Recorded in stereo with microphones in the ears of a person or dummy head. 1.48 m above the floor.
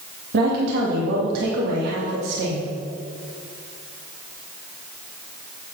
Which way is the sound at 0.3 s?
65° right (ahead or behind).